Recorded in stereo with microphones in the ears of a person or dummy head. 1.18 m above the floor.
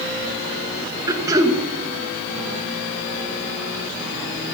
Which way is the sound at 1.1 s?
20° right (ahead or behind).